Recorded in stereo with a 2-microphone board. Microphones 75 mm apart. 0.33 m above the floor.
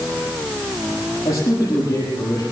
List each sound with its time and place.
1.2 s a man speaking: 40° left (ahead or behind), 8 m